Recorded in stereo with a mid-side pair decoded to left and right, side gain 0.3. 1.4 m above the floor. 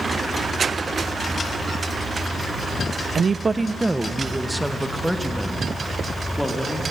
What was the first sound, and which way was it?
A woman speaking, 60° right.